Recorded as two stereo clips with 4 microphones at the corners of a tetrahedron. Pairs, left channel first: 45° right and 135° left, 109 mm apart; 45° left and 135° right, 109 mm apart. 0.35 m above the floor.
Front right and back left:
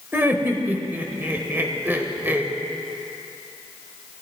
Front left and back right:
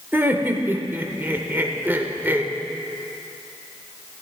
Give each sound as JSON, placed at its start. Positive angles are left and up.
{"t": 0.1, "sound": "laughter", "azimuth_deg": 175, "distance_m": 0.8}